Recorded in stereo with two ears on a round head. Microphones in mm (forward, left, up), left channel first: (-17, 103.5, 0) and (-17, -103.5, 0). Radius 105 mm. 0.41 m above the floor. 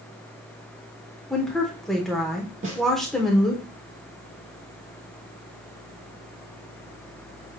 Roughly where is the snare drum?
Right.